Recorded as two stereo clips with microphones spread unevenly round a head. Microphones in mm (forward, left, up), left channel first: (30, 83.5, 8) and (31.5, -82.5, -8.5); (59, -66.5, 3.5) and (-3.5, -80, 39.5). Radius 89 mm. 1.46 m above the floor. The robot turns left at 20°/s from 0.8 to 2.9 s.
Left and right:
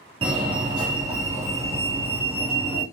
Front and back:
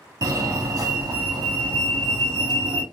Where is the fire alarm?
130° right, 1.5 m; by 2.8 s 170° right, 1.5 m.